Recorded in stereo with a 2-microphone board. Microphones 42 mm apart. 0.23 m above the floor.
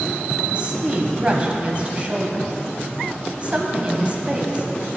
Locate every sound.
0.5 s a woman speaking: 30° right (ahead or behind), 1.0 m